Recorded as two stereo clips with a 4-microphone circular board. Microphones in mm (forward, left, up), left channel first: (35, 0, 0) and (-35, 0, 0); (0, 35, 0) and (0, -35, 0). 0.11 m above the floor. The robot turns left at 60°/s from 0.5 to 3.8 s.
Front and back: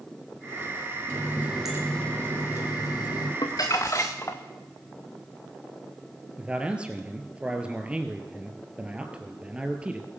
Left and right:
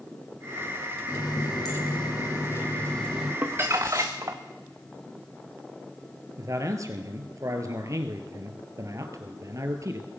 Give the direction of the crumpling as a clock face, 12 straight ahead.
1 o'clock.